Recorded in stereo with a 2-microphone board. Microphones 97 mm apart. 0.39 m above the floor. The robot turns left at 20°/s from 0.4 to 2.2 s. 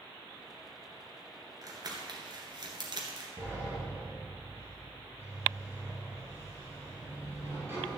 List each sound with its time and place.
1.6 s crumpling: 40° right (ahead or behind), 2 m; by 3.3 s 50° right (ahead or behind), 2 m
3.4 s a sliding door: 25° right (ahead or behind), 4 m